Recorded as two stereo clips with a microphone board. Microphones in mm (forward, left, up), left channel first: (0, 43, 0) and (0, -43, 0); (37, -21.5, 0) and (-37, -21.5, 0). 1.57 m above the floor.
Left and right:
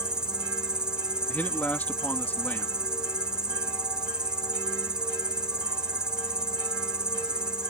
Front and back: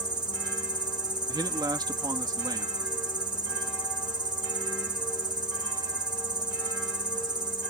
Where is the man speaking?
160° left.